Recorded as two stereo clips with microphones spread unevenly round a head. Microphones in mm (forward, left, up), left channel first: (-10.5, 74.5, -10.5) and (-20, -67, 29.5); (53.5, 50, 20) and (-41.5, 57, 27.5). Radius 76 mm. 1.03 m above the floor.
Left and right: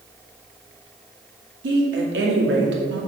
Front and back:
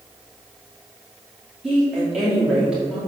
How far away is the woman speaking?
About 2.5 m.